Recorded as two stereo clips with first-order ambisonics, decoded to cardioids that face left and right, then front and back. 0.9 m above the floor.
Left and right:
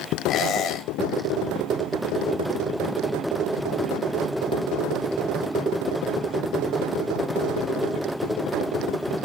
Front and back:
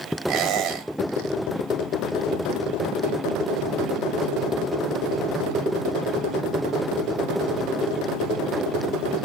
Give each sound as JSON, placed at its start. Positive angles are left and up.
{"t": 0.3, "sound": "a squeak", "azimuth_deg": 135, "distance_m": 1.6}